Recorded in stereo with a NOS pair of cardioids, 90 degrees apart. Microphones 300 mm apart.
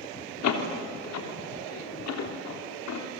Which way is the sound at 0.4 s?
65° left.